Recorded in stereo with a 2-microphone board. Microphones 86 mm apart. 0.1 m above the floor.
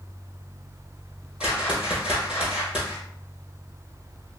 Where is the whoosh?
10° right (ahead or behind), 1.4 m.